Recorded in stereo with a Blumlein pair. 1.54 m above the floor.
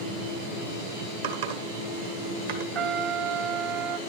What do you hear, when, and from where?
1.2 s typing on a keyboard: 55° right, 1.6 m
2.8 s a trumpet: 30° right, 0.5 m